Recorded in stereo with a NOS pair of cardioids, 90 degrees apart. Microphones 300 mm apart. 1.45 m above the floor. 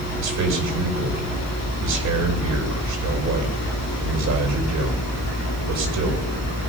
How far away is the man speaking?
About 5.5 m.